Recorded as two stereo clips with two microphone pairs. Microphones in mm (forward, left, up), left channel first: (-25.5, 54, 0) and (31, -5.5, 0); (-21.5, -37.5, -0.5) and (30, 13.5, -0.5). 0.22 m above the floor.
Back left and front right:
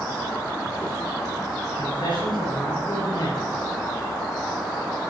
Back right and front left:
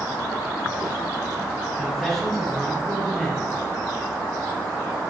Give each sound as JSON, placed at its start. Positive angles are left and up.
{"t": 1.8, "sound": "a man speaking", "azimuth_deg": 135, "distance_m": 3.5}